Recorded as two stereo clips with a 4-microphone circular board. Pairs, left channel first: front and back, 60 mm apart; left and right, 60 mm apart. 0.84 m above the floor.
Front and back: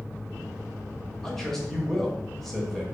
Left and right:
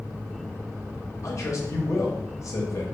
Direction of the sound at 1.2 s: 85° left.